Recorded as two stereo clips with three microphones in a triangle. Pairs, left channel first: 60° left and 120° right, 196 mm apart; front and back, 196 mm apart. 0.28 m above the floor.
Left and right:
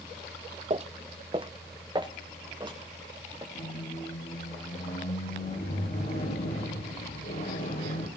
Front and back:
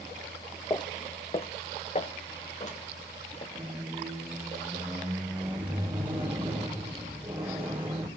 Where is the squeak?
100° left, 5 m.